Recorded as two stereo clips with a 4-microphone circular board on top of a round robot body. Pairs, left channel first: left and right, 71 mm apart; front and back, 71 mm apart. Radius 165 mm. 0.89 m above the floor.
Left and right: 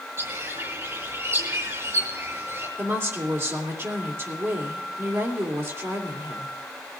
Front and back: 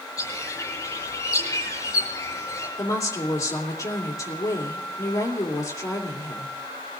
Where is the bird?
40° right, 6 m.